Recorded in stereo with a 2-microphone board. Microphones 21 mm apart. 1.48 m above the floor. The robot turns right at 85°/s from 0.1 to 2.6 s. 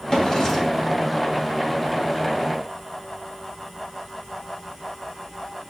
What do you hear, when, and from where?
0.1 s a drawer: 85° left, 1.3 m; by 0.9 s 160° left, 1.3 m